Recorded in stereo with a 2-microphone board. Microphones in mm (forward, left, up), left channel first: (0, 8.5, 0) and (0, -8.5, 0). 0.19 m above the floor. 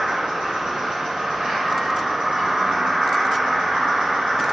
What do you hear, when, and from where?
0.0 s an insect: 65° right (ahead or behind), 1.4 m